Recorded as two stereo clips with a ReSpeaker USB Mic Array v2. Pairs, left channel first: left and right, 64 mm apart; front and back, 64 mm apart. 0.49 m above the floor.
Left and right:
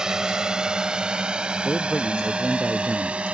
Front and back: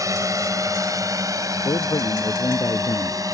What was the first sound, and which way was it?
A drone, 170° right.